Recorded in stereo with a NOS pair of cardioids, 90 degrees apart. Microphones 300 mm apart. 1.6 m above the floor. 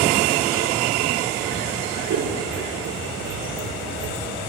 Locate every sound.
2.1 s scissors: 65° right, 5 m